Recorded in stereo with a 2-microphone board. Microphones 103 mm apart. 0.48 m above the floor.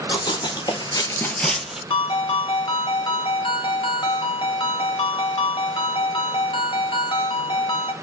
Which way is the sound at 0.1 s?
45° left (ahead or behind).